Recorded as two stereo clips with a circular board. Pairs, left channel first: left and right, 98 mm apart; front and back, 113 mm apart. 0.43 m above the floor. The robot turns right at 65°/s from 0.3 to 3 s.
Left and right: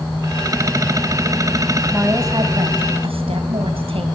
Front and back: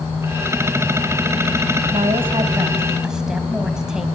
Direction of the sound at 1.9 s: 165° right.